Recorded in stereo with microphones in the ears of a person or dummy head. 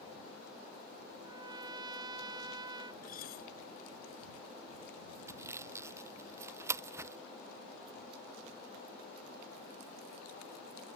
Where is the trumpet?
15° right (ahead or behind).